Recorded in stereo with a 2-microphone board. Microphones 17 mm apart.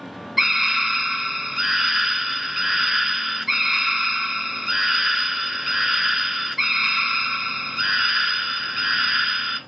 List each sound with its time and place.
0.4 s a scream: 10° right (ahead or behind), 1.7 m